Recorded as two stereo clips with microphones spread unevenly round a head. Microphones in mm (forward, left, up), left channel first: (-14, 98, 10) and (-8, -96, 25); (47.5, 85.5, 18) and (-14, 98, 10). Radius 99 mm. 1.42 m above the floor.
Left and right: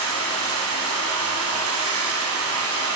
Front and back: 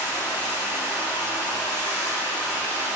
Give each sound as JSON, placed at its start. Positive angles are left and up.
{"t": 0.0, "sound": "running water", "azimuth_deg": -70, "distance_m": 7.0}